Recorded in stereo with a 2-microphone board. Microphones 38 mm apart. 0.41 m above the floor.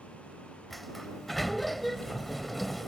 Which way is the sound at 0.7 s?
5° left (ahead or behind).